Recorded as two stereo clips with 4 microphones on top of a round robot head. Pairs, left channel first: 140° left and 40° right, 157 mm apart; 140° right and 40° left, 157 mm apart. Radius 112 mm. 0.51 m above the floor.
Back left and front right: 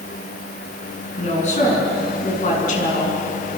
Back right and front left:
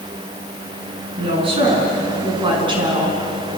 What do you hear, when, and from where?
1.2 s a woman speaking: 95° left, 7.5 m; by 3.2 s 100° left, 7 m